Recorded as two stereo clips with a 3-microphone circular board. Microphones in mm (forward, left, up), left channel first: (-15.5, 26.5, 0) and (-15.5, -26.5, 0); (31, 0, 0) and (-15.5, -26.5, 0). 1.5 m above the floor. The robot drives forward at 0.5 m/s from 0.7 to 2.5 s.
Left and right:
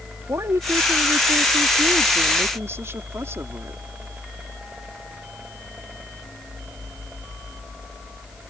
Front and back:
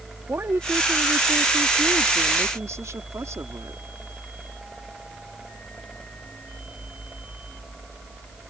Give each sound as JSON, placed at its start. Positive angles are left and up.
{"t": 0.3, "sound": "a woman speaking", "azimuth_deg": -110}